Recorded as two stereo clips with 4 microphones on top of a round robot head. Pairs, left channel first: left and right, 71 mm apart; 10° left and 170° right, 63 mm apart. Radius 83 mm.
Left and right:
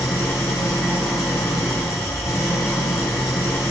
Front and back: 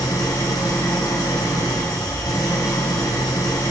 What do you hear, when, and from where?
0.0 s an engine running: 35° left, 3 m